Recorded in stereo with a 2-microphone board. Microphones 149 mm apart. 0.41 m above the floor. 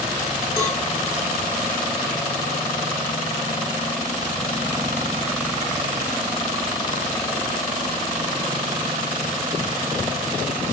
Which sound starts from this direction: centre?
A cowbell, at 0.6 s.